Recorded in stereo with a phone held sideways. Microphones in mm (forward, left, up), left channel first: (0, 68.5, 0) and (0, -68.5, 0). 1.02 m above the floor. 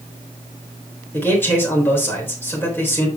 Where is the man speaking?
15° left (ahead or behind), 3.5 m.